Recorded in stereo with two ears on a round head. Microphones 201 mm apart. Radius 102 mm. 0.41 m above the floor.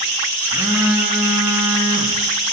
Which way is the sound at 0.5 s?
5° right (ahead or behind).